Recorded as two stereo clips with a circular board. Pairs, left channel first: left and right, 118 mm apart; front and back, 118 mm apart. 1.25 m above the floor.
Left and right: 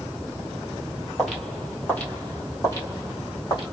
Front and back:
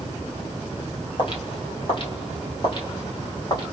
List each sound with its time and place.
1.2 s footsteps: 5° right, 1.6 m; by 3.6 s 45° left, 2 m